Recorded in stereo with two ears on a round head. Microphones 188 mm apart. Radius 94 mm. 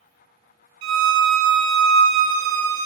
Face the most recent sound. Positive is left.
turn(degrees=-65)  # may be behind; listen again after turning